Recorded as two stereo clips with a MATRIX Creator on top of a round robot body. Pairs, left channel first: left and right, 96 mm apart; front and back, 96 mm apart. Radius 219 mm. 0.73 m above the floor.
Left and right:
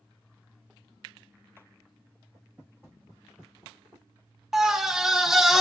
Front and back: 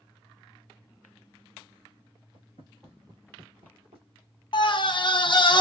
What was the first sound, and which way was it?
Footsteps, 10° left.